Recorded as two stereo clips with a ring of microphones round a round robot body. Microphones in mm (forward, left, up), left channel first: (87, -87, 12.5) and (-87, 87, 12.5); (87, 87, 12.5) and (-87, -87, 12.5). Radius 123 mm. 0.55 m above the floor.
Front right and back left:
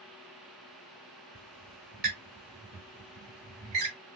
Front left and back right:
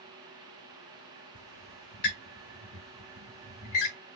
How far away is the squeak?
About 1.8 m.